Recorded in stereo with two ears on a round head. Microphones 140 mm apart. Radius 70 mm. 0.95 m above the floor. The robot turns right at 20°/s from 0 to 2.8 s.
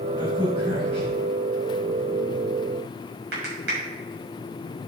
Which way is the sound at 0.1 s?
25° right (ahead or behind).